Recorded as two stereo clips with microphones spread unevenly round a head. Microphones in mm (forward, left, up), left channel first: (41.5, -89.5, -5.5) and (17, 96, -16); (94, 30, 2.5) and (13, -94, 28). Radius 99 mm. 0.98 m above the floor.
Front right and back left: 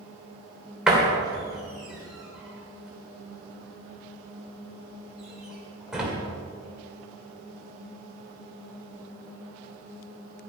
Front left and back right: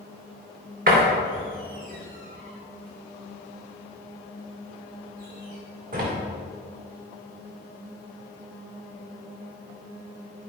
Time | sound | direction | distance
0.9 | a door slam | 175° right | 2.5 m